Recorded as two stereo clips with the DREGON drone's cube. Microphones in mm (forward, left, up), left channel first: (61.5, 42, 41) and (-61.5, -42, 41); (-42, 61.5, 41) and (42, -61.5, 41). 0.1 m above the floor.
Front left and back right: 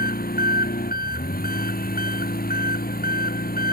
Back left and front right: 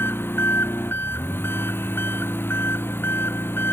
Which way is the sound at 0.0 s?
50° left.